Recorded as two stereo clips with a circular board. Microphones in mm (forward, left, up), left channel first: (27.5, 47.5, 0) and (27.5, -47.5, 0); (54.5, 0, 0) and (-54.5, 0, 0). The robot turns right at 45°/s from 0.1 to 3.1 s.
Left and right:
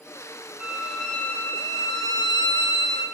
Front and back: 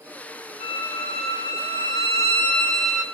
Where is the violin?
10° right, 3 m; by 3.0 s 100° left, 3 m.